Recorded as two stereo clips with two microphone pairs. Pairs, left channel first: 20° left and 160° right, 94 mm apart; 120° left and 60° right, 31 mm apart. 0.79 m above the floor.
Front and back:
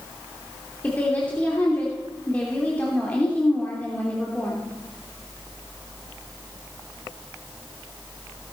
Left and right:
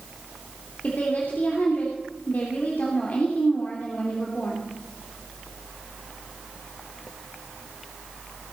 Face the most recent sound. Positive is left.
turn(degrees=95)